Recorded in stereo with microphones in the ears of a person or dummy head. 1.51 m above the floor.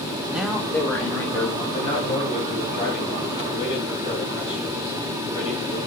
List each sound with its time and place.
0.3 s a man speaking: centre (ahead or behind), 1.0 m; by 1.6 s 15° left (ahead or behind), 3 m
1.7 s a man speaking: 35° left (ahead or behind), 2.5 m